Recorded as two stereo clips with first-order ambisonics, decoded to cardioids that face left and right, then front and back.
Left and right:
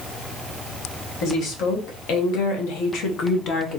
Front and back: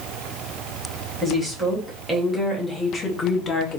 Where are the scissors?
I don't hear scissors.